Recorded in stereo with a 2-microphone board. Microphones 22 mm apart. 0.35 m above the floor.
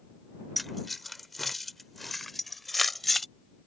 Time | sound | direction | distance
0.6 | keys jangling | 5° left (ahead or behind) | ?